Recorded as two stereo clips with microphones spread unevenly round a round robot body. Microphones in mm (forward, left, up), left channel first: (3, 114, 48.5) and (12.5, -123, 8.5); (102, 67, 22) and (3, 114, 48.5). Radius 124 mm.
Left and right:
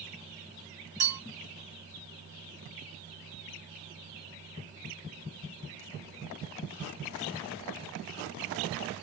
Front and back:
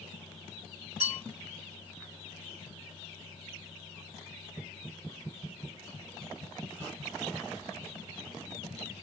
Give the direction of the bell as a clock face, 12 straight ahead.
3 o'clock.